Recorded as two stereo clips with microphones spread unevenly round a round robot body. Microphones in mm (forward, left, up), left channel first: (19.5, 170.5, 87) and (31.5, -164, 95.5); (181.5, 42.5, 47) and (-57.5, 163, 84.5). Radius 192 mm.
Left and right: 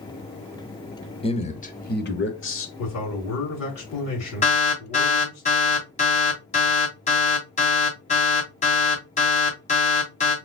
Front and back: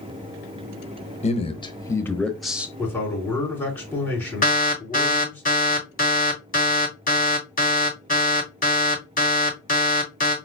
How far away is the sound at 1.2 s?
About 1.4 m.